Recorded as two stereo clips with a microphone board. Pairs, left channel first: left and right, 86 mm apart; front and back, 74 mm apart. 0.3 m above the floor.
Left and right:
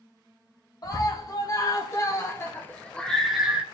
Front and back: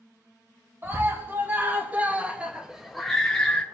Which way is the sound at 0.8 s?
125° left.